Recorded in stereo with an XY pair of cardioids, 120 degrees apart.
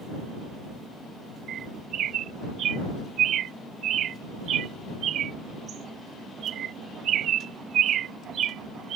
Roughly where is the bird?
Ahead right.